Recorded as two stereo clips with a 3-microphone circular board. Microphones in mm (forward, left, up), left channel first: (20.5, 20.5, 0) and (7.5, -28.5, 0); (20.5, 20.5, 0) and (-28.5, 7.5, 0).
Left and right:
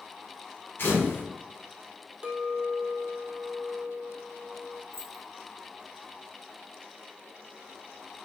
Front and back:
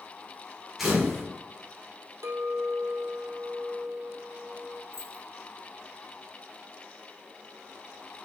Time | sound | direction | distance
0.8 | a camera shutter | 110° left | 3 m
2.2 | a clink | 175° right | 1.1 m
4.9 | keys jangling | 45° left | 2 m